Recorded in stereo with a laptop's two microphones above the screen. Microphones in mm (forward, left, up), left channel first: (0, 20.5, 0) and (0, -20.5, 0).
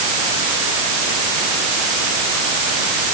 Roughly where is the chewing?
No chewing in this recording.